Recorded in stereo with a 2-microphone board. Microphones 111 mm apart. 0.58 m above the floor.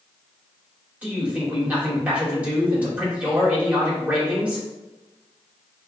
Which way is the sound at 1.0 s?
15° right (ahead or behind).